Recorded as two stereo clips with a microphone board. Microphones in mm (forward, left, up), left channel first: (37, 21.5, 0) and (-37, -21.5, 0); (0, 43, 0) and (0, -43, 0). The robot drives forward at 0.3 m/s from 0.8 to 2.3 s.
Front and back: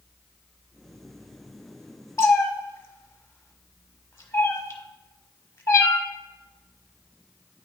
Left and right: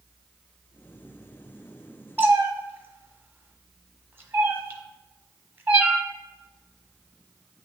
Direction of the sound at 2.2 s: 25° right.